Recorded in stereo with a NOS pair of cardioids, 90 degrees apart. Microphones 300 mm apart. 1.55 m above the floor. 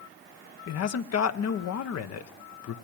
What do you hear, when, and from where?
0.7 s a man speaking: 55° left, 1.2 m